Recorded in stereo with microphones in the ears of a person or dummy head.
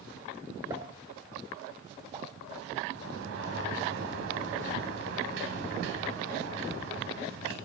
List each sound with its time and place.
0.7 s a pop: 10° right (ahead or behind), 1.0 m
2.9 s a sliding door: 75° right (ahead or behind), 3 m